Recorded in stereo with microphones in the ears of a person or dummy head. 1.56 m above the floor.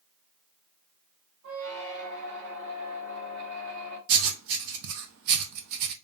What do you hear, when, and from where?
1.4 s a squeak: 60° right (ahead or behind), 2 m
4.1 s writing: 75° right (ahead or behind), 0.8 m